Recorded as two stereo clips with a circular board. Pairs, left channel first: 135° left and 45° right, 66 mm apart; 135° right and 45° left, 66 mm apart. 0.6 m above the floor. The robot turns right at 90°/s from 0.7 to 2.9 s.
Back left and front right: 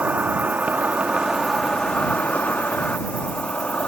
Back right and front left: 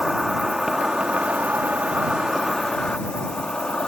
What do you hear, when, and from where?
0.0 s an insect: 30° right; by 3.9 s 165° left